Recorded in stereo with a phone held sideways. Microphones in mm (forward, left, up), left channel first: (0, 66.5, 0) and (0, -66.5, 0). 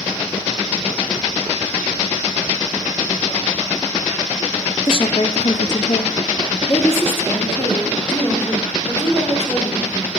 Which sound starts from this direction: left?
A woman speaking, at 4.9 s.